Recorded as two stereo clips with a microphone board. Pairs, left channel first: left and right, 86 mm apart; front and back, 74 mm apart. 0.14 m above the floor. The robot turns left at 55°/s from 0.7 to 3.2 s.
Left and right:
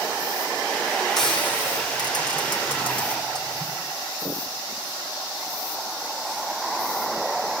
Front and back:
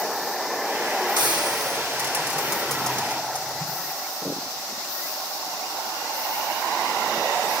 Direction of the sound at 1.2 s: 175° left.